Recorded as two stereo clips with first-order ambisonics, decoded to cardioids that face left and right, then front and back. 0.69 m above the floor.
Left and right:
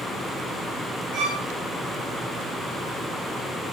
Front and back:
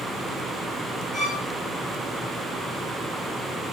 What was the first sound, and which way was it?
A violin, 80° right.